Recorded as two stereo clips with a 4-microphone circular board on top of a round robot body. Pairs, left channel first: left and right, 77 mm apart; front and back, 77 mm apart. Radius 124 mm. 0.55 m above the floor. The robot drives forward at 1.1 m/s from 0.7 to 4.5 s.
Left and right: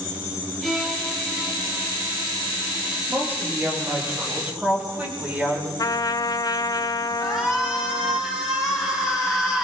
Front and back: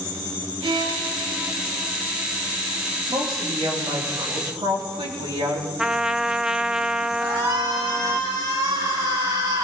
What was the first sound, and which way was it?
A violin, straight behind.